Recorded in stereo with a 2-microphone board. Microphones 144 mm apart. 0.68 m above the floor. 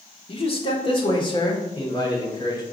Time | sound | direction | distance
0.3 | a man speaking | 40° left (ahead or behind) | 1.3 m